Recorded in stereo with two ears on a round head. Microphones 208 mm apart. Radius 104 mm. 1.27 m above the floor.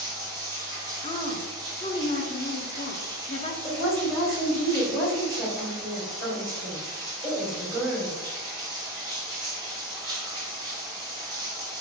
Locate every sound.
0.0 s running water: 20° right (ahead or behind), 0.8 m
1.0 s a woman speaking: 25° left (ahead or behind), 0.7 m
3.6 s a woman speaking: centre (ahead or behind), 1.8 m